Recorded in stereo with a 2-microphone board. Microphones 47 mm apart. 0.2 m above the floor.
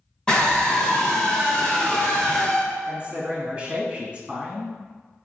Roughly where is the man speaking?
Centre.